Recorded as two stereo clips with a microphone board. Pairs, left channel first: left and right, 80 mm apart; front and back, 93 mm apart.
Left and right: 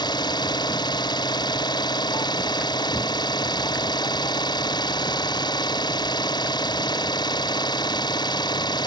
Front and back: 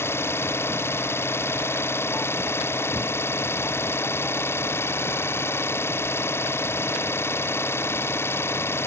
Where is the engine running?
65° left.